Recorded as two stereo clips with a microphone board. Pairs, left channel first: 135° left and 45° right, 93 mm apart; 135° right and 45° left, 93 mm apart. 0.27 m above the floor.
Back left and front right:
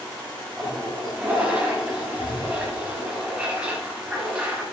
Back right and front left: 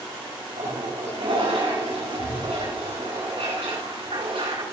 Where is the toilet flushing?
35° left, 8 m.